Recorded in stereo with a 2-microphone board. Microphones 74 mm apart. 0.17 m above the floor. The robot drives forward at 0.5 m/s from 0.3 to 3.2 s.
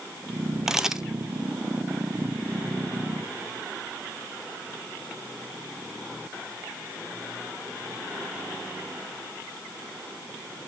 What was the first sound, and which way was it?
A camera shutter, 5° right (ahead or behind).